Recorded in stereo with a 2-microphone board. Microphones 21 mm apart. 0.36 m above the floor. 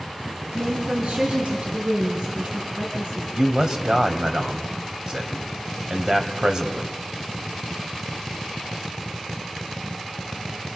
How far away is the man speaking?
About 2.5 m.